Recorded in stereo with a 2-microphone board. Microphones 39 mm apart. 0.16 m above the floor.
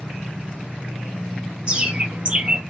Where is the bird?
25° right (ahead or behind), 0.8 m.